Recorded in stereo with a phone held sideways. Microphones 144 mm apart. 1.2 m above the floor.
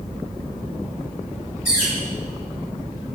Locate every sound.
1.6 s a bird: 85° left, 4.5 m